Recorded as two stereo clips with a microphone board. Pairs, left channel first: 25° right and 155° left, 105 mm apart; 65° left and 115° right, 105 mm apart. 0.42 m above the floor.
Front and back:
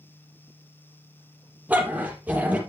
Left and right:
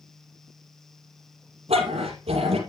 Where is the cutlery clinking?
I don't hear cutlery clinking.